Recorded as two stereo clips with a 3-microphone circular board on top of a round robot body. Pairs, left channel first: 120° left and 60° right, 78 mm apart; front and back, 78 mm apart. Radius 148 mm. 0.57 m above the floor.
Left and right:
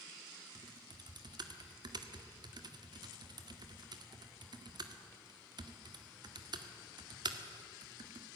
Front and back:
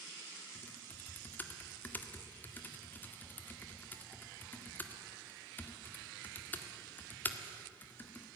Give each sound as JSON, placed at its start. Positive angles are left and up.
{"t": 0.6, "sound": "typing on a keyboard", "azimuth_deg": -65, "distance_m": 1.9}